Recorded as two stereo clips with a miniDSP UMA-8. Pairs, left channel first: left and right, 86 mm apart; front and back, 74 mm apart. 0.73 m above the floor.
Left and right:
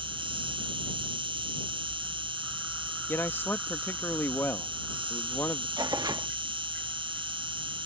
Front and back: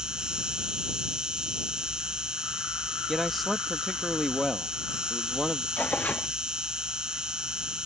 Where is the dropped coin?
No dropped coin in this recording.